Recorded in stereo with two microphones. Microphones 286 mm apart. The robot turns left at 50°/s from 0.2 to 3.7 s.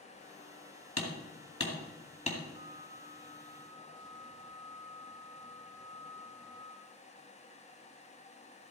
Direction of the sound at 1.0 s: 70° left (ahead or behind).